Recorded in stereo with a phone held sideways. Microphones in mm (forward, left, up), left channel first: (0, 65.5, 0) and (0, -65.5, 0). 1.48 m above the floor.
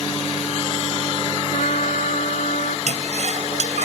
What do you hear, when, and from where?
1.5 s a trumpet: 70° left (ahead or behind)
2.9 s a toilet flushing: 65° right (ahead or behind)